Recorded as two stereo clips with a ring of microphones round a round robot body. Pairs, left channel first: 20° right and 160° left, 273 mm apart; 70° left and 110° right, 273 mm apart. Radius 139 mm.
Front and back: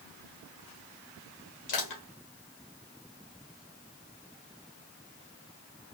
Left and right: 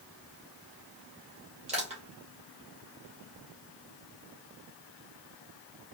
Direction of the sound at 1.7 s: 45° right.